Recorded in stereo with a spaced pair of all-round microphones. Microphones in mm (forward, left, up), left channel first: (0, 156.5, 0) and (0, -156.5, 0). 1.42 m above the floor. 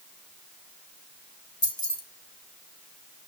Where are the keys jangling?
60° left (ahead or behind), 1.4 m.